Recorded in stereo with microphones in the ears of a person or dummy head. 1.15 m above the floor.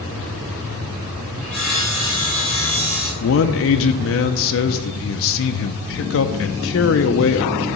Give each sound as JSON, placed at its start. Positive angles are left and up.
{"t": 1.4, "sound": "sawing", "side_deg": 10, "distance_m": 3.5}
{"t": 3.2, "sound": "a man speaking", "side_deg": 65, "distance_m": 0.6}